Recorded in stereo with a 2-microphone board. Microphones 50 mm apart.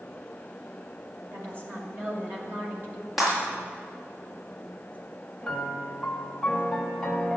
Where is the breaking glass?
Centre (ahead or behind), 5.5 m.